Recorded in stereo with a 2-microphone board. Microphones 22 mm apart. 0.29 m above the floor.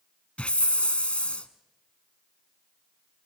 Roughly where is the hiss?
Left.